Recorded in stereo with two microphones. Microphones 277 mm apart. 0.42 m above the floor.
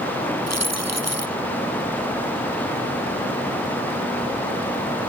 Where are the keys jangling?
65° right (ahead or behind).